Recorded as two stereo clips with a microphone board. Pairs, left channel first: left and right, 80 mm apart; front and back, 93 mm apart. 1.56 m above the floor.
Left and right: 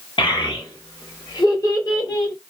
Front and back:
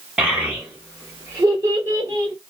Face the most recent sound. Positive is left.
turn(degrees=135)